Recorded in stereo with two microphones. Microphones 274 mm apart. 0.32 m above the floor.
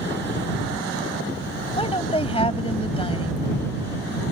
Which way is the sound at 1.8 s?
20° left (ahead or behind).